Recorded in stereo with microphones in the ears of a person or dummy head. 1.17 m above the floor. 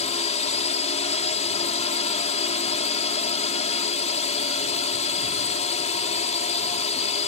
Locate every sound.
0.0 s a drone: 30° left (ahead or behind)